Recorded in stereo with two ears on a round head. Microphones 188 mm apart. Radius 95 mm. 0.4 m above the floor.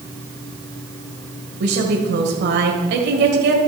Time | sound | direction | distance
1.6 | a woman speaking | 55° right (ahead or behind) | 2.0 m